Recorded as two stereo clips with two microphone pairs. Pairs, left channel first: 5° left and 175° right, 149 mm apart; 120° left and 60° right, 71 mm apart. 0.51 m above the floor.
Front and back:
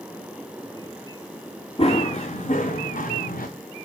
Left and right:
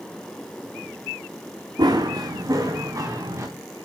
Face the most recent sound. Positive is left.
turn(degrees=-15)